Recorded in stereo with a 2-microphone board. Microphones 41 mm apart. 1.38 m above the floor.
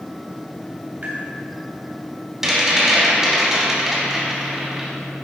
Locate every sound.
1.0 s tapping: 50° right (ahead or behind), 2.5 m
2.4 s a rattle: 15° right (ahead or behind), 2.5 m